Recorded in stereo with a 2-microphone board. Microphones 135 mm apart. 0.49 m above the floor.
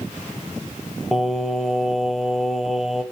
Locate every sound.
1.1 s singing: centre (ahead or behind), 0.6 m